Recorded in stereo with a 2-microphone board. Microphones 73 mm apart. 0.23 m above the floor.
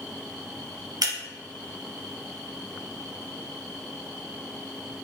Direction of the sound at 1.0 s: 60° right (ahead or behind).